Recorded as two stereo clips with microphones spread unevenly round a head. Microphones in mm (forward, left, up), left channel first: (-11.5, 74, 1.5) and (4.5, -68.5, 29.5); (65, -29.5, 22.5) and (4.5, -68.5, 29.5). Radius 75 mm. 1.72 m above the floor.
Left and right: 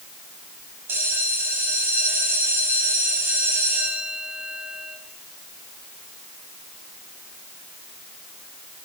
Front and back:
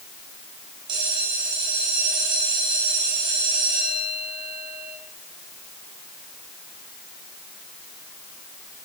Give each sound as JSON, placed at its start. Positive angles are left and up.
{"t": 0.9, "sound": "a bell", "azimuth_deg": -155, "distance_m": 5.0}